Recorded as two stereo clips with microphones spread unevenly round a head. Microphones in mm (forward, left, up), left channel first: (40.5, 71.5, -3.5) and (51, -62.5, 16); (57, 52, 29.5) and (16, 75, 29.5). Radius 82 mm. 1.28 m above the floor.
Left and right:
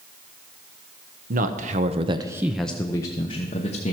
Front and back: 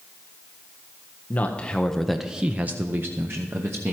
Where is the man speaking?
85° right, 0.8 m; by 3.9 s 125° left, 1.1 m.